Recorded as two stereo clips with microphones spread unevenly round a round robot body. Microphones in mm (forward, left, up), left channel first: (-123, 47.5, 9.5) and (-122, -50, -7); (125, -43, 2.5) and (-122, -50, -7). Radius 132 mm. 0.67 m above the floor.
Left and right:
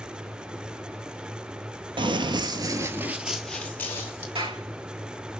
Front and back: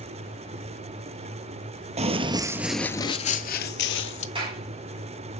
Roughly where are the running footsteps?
Behind right.